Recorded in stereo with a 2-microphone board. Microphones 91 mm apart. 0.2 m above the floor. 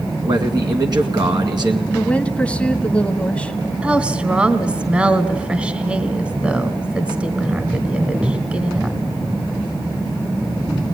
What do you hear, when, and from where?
0.2 s a man speaking: 55° right (ahead or behind), 2 m
1.9 s a woman speaking: 15° left (ahead or behind), 1.2 m
3.8 s a woman speaking: 15° right (ahead or behind), 1.3 m